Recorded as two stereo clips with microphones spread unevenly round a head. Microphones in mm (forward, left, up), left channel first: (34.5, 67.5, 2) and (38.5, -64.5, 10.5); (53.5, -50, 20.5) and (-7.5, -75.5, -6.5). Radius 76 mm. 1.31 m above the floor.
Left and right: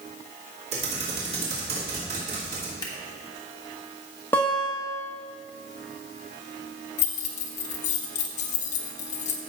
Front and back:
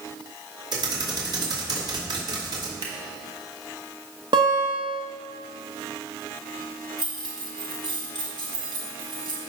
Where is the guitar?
170° left, 1.3 m.